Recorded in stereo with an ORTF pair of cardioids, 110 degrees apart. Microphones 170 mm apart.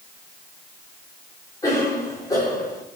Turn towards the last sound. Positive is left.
turn(degrees=20)